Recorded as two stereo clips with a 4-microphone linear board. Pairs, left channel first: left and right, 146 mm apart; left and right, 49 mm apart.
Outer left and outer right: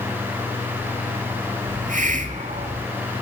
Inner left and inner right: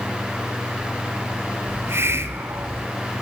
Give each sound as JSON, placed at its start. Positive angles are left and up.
{"t": 1.7, "sound": "a hiss", "side_deg": -60, "distance_m": 0.5}